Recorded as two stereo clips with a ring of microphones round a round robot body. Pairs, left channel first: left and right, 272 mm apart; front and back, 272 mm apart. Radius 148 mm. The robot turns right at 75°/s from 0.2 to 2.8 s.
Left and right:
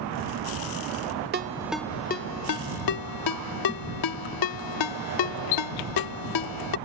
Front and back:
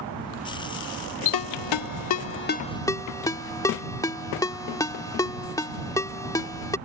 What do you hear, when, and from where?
1.3 s a ringtone: 30° right; by 6.8 s 80° left